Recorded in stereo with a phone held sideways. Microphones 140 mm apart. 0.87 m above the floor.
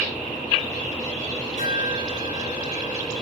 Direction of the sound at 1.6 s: 55° right (ahead or behind).